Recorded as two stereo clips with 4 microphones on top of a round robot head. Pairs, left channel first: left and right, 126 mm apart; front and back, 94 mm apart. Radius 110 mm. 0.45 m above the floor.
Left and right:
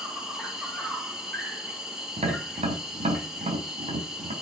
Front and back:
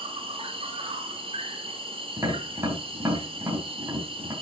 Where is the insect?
175° right, 3 m.